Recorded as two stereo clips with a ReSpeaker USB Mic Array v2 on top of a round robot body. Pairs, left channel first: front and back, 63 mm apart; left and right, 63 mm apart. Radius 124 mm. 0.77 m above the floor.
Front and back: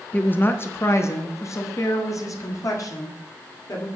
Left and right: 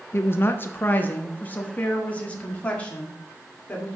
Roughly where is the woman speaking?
Ahead left.